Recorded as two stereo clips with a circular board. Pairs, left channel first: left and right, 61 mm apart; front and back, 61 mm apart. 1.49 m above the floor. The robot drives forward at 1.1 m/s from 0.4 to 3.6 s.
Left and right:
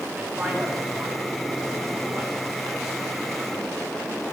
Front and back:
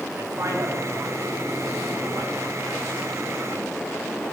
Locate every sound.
0.1 s a man speaking: 155° right, 3 m; by 3.1 s 170° right, 6 m